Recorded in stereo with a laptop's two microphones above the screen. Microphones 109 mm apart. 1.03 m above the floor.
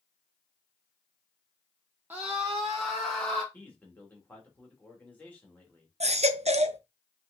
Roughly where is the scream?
Centre.